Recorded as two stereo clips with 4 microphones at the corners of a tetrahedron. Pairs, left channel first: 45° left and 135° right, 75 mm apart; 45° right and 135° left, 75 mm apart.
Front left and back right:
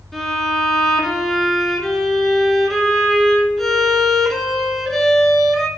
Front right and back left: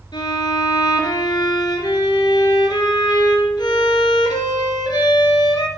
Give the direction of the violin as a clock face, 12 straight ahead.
1 o'clock.